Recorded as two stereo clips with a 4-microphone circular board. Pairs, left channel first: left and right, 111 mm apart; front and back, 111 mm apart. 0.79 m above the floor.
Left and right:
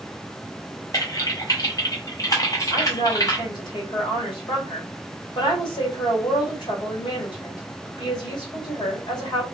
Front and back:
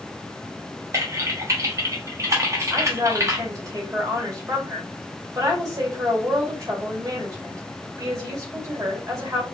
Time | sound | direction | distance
0.9 | typing on a keyboard | 135° left | 1.0 m
2.7 | a woman speaking | 125° left | 1.9 m